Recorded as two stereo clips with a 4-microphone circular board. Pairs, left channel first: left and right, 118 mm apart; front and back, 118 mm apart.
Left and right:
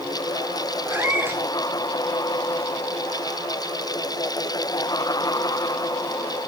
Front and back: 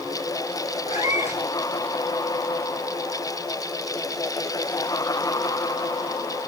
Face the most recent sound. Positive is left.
turn(degrees=-15)